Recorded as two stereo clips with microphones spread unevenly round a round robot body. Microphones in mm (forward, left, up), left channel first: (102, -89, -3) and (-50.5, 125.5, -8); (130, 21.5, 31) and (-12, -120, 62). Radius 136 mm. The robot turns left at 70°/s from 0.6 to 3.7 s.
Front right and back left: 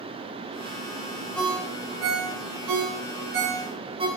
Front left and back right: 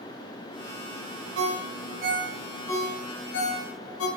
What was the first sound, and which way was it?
A ringtone, 140° right.